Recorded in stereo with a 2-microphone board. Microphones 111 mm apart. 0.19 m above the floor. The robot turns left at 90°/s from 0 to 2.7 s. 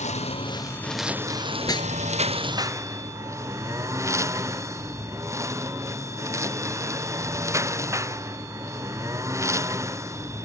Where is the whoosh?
25° left (ahead or behind); by 1.9 s 50° left (ahead or behind).